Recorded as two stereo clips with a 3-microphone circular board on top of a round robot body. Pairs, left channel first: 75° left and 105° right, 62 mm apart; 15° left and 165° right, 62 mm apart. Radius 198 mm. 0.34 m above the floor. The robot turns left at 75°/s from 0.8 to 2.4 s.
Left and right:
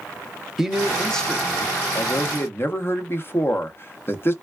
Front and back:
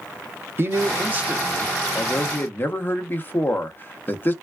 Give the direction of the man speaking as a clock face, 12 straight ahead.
6 o'clock.